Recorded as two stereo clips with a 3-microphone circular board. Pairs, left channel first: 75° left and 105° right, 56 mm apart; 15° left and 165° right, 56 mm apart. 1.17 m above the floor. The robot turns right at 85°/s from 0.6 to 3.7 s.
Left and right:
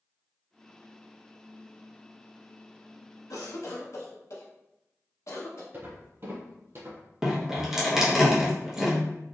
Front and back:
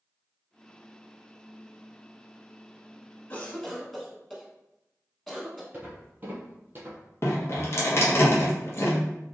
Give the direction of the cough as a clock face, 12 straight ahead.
10 o'clock.